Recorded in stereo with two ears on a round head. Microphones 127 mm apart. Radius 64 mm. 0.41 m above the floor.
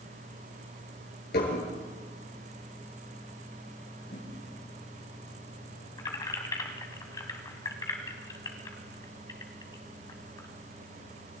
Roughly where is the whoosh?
Left.